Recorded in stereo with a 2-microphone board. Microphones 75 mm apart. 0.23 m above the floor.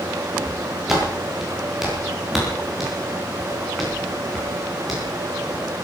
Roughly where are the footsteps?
Centre.